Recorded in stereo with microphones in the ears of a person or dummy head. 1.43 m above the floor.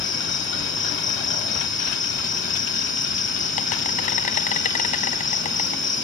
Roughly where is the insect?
Left.